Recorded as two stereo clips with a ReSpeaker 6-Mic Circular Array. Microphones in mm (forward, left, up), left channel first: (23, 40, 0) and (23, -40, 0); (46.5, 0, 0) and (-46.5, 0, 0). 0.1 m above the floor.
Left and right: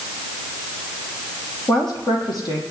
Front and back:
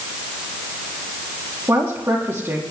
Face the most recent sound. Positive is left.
turn(degrees=115)